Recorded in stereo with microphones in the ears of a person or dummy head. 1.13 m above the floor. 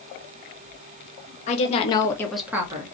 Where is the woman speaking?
45° left (ahead or behind), 1.0 m; by 3.0 s 30° right (ahead or behind), 0.8 m.